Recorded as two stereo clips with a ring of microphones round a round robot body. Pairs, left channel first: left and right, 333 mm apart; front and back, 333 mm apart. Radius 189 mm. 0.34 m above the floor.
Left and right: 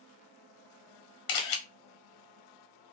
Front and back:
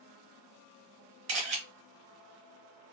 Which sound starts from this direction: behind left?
A camera shutter, at 1.3 s.